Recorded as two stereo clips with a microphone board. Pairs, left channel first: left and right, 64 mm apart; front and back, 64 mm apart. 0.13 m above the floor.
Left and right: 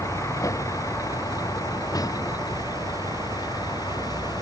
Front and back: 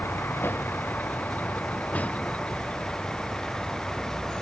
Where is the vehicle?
50° left; by 4.4 s 80° left.